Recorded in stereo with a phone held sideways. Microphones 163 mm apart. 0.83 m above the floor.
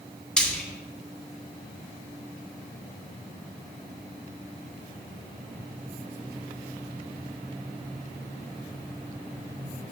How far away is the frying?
About 2.5 m.